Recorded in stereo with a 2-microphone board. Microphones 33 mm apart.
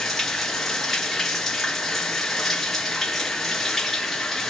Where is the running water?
5° left (ahead or behind), 2.5 m.